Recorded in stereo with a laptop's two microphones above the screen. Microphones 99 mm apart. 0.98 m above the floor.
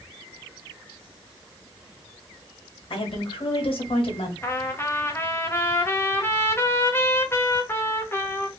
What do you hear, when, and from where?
2.9 s a woman speaking: 65° left (ahead or behind), 1.7 m
4.4 s a trumpet: 25° left (ahead or behind), 0.7 m